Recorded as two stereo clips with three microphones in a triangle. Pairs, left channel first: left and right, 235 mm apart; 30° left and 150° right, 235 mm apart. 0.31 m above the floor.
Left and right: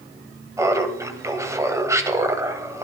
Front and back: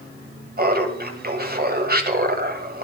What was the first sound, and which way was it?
Laughter, 160° right.